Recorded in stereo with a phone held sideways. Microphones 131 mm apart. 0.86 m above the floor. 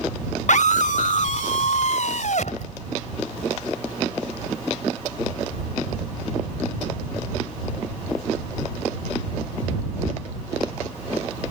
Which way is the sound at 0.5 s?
65° left (ahead or behind).